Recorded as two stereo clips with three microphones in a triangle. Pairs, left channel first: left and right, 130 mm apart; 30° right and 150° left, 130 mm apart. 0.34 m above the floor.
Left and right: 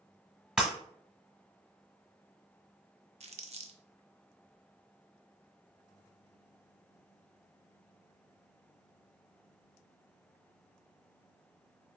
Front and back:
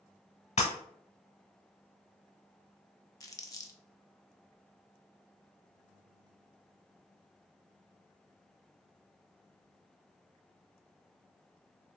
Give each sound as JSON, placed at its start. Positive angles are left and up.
{"t": 0.6, "sound": "breaking glass", "azimuth_deg": -5, "distance_m": 0.9}
{"t": 3.2, "sound": "crumpling", "azimuth_deg": -90, "distance_m": 0.5}